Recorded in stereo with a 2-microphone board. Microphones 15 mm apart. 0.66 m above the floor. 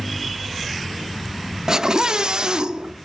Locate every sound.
1.7 s a scream: 35° right (ahead or behind), 0.6 m; by 3.0 s 50° right (ahead or behind), 1.6 m